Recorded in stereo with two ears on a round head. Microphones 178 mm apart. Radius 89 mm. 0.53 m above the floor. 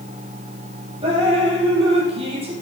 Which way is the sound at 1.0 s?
30° right (ahead or behind).